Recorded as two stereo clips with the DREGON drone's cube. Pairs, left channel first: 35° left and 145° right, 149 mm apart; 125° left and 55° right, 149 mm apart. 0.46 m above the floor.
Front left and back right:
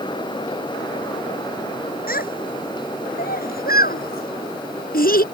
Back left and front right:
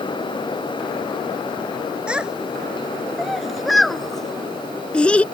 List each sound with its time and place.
2.1 s a child speaking: 30° left; by 5.2 s 45° left